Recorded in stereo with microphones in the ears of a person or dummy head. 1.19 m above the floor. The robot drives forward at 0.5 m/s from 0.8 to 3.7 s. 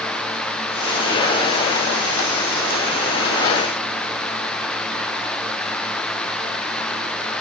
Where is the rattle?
No rattle in this recording.